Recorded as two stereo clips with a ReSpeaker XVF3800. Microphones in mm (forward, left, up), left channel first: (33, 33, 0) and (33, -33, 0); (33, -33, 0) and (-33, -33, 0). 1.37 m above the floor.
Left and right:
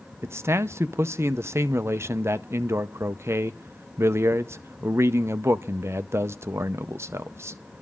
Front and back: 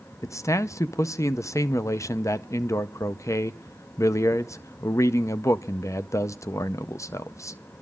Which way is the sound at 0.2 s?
40° right.